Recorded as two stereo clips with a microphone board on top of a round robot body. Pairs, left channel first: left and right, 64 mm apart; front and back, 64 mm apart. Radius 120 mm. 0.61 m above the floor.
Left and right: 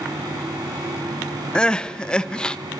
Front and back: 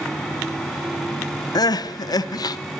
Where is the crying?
15° left, 0.5 m.